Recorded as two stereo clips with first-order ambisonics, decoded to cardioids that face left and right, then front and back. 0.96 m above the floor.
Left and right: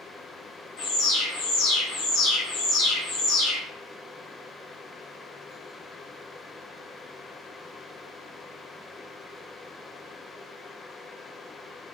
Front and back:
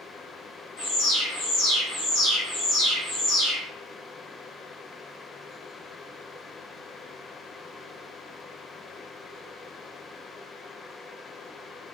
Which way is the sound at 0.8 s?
45° left.